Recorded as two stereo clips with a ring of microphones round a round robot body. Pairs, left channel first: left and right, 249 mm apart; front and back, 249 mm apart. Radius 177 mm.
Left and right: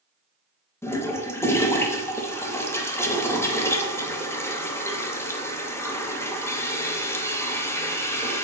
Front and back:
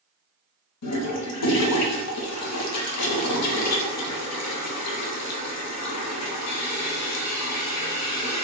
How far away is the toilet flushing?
About 0.7 m.